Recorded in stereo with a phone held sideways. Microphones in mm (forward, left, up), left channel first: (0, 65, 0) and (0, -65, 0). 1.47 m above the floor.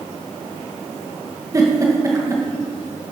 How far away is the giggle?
About 2 m.